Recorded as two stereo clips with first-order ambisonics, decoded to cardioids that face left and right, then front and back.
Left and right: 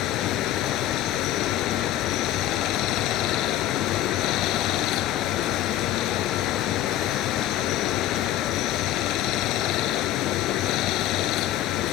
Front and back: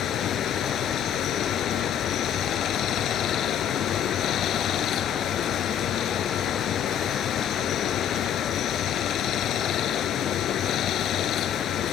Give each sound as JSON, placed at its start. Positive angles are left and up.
{"t": 0.0, "sound": "running water", "azimuth_deg": 50}